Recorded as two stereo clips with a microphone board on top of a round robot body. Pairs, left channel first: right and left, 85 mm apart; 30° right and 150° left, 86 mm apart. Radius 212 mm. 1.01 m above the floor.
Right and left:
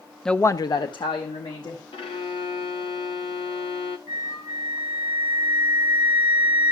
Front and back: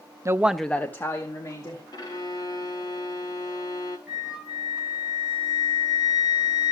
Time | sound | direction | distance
0.2 | a woman speaking | 175° right | 0.6 m
1.9 | a violin | 75° right | 0.5 m
4.1 | a flute | 130° right | 2.5 m